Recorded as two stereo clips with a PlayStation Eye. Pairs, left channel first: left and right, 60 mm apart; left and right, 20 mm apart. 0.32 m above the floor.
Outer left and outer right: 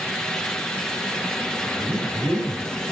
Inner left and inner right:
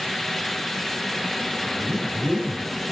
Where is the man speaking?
75° right (ahead or behind), 4.5 m; by 2.8 s 70° right (ahead or behind), 4.5 m.